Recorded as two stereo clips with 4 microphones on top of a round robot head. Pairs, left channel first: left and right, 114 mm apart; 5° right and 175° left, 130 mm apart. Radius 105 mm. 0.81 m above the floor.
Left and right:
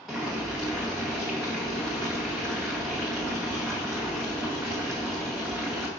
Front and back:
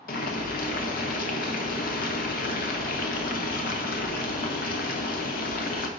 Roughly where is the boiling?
Ahead.